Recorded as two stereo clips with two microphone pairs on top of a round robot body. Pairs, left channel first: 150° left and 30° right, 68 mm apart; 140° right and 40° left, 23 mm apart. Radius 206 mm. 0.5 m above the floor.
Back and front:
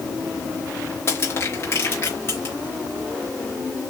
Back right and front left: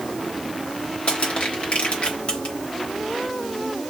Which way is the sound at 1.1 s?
160° right.